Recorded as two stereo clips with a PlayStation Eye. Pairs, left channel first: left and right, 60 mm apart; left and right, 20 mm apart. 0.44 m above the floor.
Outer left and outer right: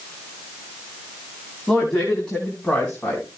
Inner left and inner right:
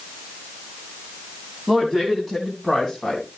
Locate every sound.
1.7 s a woman speaking: 5° left (ahead or behind), 3.5 m; by 3.3 s 20° left (ahead or behind), 4 m